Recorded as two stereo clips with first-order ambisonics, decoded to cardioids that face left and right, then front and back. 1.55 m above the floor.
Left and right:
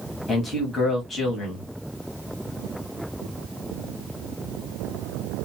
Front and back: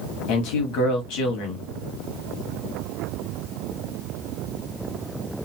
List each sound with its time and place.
0.3 s a man speaking: 10° left, 1.4 m